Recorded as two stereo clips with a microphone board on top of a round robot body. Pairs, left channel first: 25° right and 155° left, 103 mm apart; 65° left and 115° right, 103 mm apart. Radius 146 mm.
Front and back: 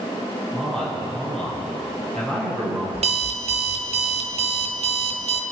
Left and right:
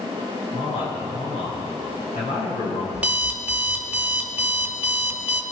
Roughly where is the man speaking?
Ahead left.